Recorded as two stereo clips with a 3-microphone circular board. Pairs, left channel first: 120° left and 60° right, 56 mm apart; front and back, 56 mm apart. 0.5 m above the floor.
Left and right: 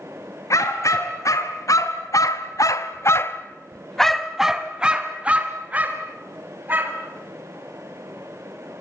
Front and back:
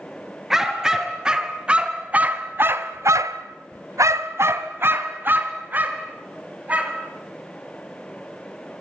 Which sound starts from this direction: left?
A dog barking, at 0.5 s.